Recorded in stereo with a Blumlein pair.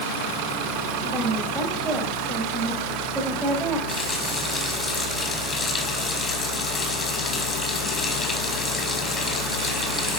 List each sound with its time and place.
1.0 s a woman speaking: 10° right, 5 m
3.9 s a running tap: 20° left, 5 m